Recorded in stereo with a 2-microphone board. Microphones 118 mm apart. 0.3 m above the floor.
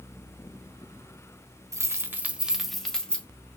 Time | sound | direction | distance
1.7 | keys jangling | 25° right (ahead or behind) | 0.7 m